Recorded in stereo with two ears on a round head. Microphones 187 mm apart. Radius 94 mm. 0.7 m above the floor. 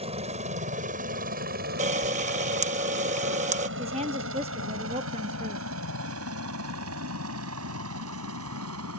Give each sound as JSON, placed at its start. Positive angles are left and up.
{"t": 0.0, "sound": "a helicopter", "side_deg": -30}
{"t": 1.8, "sound": "a camera shutter", "side_deg": -35}
{"t": 3.8, "sound": "a woman speaking", "side_deg": -30}